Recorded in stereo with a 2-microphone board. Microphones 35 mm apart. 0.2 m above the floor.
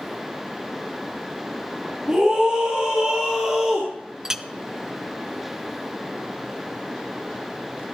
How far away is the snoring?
I don't hear snoring.